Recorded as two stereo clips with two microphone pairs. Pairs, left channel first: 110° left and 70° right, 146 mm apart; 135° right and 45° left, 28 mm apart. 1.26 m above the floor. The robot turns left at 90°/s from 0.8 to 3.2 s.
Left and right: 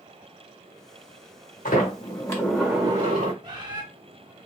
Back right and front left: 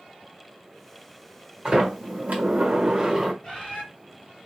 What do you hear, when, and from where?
1.6 s a sliding door: 105° left, 1.3 m; by 3.3 s 35° right, 1.3 m
3.4 s a bird: 110° right, 1.2 m